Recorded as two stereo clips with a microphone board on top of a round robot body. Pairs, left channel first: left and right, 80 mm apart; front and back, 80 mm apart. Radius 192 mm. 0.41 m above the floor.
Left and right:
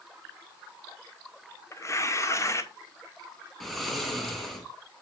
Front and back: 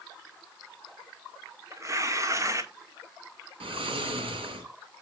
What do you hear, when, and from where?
1.7 s tearing paper: 135° left, 1.8 m
3.6 s snoring: straight behind, 2.5 m